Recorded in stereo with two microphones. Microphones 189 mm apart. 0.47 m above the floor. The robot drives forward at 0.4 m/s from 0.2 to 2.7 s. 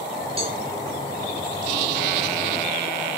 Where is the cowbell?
30° right (ahead or behind), 2.5 m.